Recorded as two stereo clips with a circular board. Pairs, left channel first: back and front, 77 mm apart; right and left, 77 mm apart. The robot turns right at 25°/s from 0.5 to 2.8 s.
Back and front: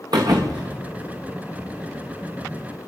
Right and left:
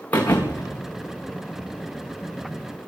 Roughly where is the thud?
Ahead.